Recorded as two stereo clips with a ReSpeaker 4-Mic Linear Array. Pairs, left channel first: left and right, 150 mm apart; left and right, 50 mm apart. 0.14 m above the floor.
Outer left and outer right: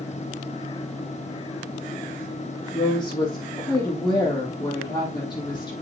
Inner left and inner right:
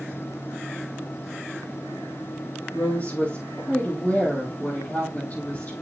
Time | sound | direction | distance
2.7 | a woman speaking | 30° left (ahead or behind) | 4.5 m